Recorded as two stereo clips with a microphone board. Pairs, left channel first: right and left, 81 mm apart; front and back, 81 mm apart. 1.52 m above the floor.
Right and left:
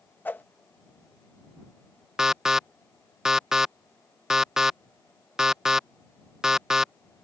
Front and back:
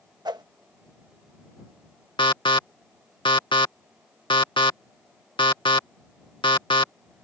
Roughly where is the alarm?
Ahead.